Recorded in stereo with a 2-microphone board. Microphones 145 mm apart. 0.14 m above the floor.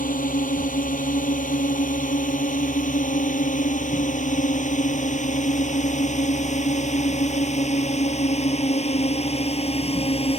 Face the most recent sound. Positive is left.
turn(degrees=45)  # may be behind; listen again after turning